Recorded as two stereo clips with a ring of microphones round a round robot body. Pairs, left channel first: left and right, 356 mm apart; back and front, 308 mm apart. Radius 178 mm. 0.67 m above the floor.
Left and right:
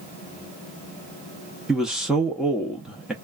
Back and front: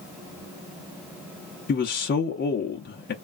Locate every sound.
1.7 s a man speaking: straight behind, 0.6 m